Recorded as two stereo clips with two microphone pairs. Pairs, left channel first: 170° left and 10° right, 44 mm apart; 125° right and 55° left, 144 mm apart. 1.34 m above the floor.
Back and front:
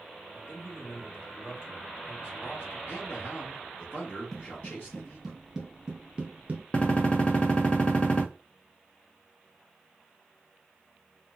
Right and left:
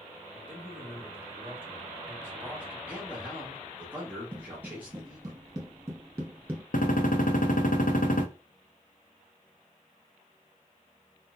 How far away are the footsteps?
About 1.7 m.